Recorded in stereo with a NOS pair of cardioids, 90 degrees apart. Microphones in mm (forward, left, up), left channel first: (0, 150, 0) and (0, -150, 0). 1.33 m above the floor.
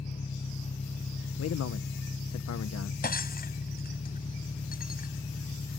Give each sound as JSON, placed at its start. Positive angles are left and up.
{"t": 0.0, "sound": "an engine running", "azimuth_deg": 25}
{"t": 1.4, "sound": "a man speaking", "azimuth_deg": 55}
{"t": 3.0, "sound": "breaking glass", "azimuth_deg": 30}